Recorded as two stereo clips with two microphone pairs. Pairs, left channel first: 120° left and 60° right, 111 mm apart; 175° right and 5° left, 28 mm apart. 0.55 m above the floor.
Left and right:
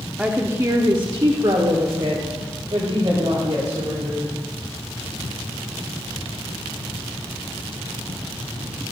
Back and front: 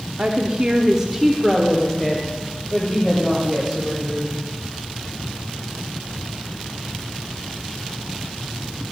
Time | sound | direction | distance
0.2 | a woman speaking | 20° left | 1.0 m